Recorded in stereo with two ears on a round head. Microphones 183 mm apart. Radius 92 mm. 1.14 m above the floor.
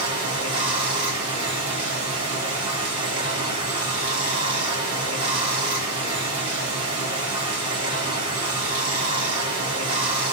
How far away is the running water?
About 1.1 m.